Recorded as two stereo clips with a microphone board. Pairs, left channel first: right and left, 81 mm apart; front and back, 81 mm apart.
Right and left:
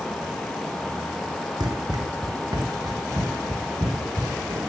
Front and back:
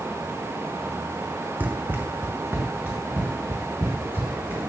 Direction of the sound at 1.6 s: 110° left.